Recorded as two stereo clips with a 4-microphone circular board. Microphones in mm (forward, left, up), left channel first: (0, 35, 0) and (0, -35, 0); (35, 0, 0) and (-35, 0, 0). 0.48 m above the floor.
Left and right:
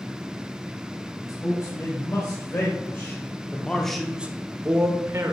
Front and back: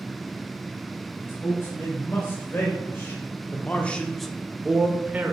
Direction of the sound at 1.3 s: 50° left.